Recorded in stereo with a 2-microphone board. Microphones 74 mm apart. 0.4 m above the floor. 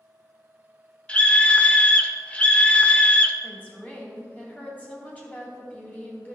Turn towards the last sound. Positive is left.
turn(degrees=20)  # may be behind; listen again after turning